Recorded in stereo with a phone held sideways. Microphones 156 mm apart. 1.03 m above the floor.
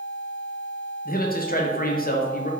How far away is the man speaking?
About 0.6 m.